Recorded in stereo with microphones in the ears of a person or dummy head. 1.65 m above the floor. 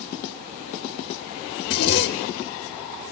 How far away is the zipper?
About 0.9 m.